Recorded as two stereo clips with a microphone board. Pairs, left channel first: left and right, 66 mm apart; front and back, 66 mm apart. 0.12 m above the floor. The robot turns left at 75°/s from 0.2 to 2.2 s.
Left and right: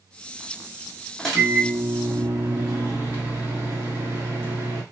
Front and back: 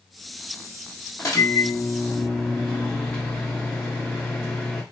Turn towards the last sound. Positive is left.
turn(degrees=-65)